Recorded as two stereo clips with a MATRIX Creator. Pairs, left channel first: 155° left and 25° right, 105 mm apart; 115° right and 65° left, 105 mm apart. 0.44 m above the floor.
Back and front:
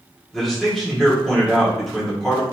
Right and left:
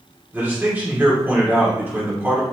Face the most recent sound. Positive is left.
turn(degrees=80)